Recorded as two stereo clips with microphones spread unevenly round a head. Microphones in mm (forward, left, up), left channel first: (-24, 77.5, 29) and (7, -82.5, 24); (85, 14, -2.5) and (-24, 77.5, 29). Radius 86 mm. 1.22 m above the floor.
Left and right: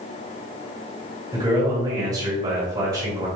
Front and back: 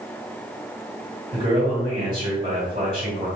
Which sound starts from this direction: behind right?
A man speaking, at 1.3 s.